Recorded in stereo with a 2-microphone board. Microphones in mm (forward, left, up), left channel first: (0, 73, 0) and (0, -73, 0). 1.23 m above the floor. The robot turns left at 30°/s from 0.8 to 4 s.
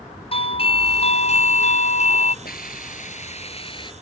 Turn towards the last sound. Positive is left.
turn(degrees=30)